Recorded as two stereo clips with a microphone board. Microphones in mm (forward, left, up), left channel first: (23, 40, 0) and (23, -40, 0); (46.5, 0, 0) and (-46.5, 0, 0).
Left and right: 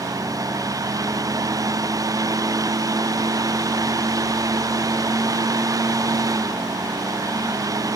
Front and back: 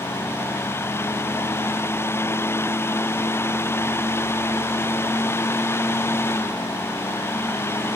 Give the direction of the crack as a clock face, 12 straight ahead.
No crack in this recording.